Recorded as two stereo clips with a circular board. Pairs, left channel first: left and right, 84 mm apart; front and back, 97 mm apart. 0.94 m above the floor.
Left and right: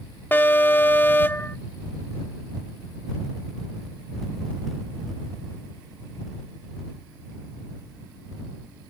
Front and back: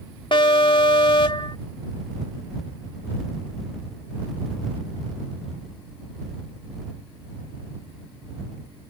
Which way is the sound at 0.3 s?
25° left.